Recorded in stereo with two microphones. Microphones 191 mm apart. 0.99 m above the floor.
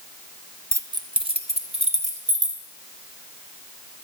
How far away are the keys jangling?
About 0.6 m.